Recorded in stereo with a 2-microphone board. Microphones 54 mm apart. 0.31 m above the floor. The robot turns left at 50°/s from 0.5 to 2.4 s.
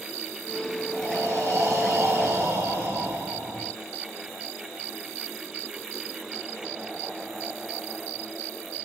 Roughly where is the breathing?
Ahead right.